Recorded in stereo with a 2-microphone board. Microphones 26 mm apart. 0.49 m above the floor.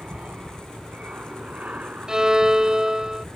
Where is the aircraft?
65° right (ahead or behind); by 3.4 s 70° right (ahead or behind).